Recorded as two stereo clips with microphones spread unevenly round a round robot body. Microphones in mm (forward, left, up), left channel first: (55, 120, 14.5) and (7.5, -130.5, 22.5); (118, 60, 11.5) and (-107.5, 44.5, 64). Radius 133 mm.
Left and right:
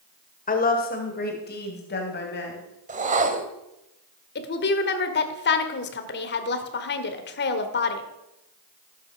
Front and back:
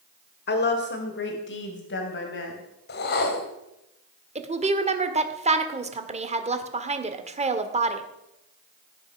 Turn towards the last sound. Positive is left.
turn(degrees=120)